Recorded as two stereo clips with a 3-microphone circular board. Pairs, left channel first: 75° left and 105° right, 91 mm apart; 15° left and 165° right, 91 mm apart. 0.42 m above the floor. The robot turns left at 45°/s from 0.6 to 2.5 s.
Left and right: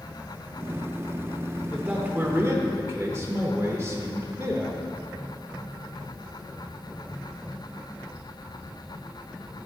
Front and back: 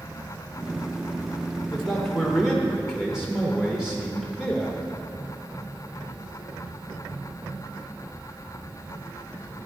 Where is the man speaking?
50° right, 1.1 m; by 4.8 s 85° right, 1.1 m.